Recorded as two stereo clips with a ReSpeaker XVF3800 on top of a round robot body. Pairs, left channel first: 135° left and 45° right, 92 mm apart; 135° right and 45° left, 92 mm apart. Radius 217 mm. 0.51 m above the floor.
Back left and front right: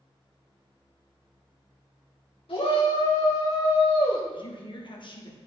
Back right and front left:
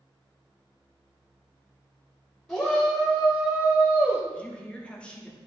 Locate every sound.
2.5 s a shout: 145° left, 3 m; by 4.2 s 120° left, 2.5 m
4.3 s a woman speaking: 150° left, 1.8 m